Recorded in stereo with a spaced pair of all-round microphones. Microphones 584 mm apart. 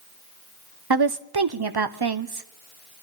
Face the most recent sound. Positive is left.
turn(degrees=-40)  # may be behind; listen again after turning